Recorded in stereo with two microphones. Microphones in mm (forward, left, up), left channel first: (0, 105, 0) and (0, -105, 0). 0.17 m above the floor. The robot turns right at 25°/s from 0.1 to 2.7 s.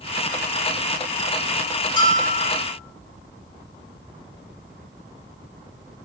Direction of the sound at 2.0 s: 25° left (ahead or behind).